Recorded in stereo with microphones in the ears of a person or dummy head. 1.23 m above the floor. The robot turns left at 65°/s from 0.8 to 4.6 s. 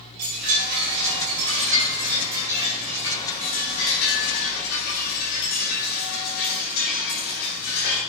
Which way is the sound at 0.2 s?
55° right.